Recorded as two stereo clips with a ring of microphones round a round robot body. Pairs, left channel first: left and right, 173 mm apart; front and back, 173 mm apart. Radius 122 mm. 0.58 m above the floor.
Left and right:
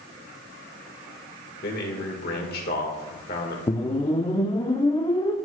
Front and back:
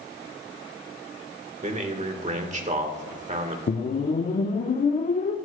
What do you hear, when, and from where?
1.6 s a man speaking: 135° left, 1.5 m
3.7 s a whoosh: 30° left, 0.9 m